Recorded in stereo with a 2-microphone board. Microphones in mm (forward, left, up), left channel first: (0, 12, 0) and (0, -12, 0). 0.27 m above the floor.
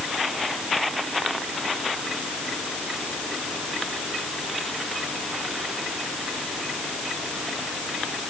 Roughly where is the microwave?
No microwave in this recording.